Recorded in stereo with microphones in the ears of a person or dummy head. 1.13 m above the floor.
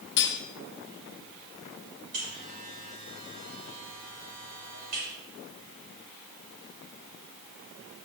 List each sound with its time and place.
0.2 s cutlery clinking: 55° left (ahead or behind), 1.0 m
2.1 s a buzzer: 45° right (ahead or behind), 4.5 m